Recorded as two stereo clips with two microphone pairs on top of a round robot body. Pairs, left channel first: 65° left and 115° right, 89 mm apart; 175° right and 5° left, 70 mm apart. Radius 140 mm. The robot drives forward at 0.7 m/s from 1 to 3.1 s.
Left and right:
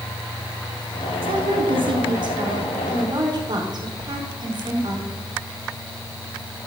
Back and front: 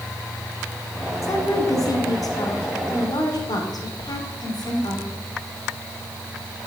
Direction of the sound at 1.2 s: 130° right.